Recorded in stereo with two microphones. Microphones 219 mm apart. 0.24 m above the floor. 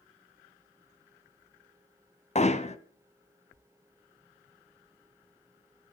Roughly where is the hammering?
Left.